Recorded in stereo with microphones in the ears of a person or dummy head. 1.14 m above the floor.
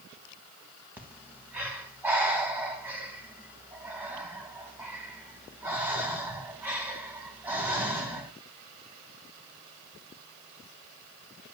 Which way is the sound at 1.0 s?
10° right (ahead or behind).